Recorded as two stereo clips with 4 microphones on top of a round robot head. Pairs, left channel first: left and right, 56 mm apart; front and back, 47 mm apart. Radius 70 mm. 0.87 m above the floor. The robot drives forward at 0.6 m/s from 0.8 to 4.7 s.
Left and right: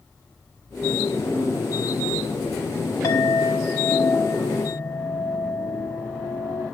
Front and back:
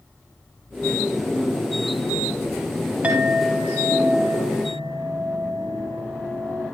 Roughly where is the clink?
Behind left.